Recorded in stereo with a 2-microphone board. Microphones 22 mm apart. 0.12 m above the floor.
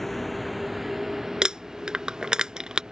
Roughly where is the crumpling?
Right.